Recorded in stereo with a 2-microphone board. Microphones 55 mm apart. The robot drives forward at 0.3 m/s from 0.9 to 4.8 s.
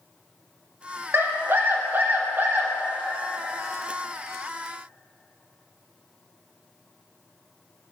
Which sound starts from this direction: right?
A scream, at 1.1 s.